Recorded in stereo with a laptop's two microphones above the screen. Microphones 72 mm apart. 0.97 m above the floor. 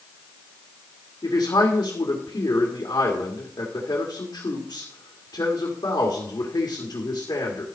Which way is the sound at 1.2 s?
70° left (ahead or behind).